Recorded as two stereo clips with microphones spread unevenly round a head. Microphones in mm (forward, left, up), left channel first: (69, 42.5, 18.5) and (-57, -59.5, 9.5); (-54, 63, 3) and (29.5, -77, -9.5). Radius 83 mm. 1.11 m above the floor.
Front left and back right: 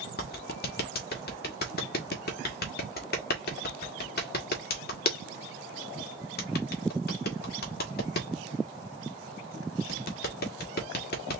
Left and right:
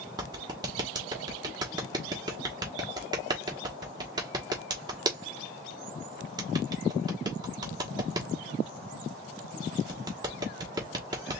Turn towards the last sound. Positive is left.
turn(degrees=10)